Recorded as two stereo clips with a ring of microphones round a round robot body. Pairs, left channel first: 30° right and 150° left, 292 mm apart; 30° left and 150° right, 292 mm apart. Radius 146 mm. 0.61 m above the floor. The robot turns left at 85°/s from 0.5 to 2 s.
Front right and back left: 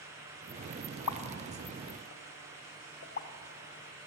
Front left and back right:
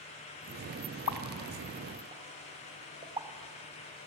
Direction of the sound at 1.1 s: Straight ahead.